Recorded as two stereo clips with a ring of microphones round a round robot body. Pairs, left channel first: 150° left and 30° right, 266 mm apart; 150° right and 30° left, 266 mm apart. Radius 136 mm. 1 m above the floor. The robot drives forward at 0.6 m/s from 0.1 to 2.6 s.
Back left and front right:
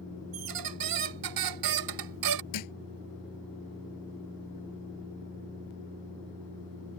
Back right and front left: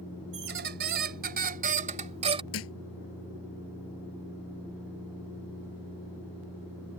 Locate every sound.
0.3 s a squeak: 20° right; by 2.4 s 40° right
2.5 s a thud: 170° left